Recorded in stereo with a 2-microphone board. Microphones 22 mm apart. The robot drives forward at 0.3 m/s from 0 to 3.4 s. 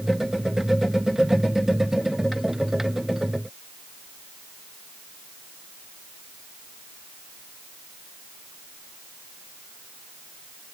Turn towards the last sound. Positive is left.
No sound to turn to.